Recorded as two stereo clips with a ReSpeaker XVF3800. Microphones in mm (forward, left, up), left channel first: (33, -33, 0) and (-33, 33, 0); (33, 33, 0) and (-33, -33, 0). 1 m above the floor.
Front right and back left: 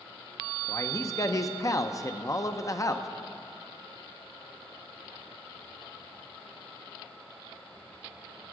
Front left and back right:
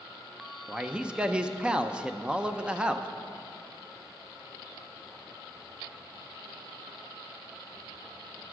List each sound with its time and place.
0.7 s a man speaking: 65° right, 0.5 m